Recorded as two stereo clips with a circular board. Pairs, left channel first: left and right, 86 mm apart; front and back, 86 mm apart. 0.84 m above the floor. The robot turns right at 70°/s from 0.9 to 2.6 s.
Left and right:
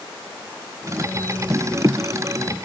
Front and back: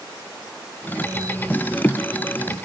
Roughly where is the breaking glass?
I don't hear breaking glass.